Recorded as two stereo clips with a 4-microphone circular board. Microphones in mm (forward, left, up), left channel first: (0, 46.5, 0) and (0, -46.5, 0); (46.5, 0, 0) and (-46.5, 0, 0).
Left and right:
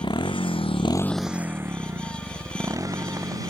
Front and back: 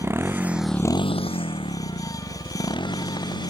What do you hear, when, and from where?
0.0 s a motorcycle: 120° left; by 3.5 s 40° right